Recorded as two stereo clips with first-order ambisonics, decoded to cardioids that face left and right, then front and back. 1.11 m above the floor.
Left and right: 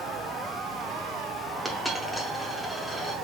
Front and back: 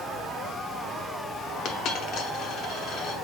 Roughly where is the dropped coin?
Ahead.